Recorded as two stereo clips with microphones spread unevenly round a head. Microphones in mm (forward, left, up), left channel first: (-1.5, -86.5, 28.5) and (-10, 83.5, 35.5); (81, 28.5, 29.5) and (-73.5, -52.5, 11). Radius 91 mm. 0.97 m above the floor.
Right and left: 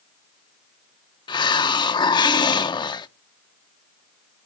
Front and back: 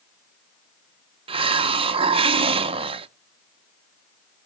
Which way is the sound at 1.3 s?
130° right.